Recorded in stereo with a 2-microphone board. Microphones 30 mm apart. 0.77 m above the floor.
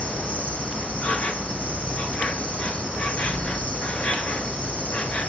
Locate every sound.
0.0 s an insect: 50° left (ahead or behind), 1.4 m